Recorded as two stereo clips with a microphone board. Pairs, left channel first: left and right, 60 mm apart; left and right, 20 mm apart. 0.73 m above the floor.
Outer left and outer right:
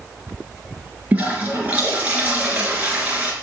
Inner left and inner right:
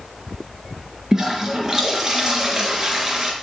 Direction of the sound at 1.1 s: 25° right (ahead or behind).